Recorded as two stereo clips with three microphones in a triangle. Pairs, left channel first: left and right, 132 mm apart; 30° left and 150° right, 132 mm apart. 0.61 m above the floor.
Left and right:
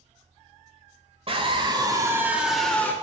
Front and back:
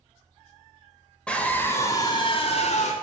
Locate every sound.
1.3 s a scream: 50° right, 2.5 m; by 2.9 s 15° left, 1.7 m